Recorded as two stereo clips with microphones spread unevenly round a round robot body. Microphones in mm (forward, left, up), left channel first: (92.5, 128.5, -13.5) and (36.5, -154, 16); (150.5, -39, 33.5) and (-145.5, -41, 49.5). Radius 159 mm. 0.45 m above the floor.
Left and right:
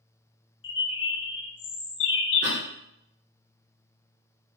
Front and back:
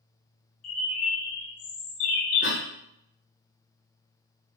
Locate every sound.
0.6 s a bird: 25° left, 0.5 m
2.4 s a cough: 45° right, 1.0 m